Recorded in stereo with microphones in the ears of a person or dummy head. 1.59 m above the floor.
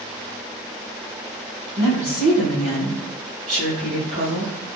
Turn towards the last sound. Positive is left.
turn(degrees=-50)  # may be behind; listen again after turning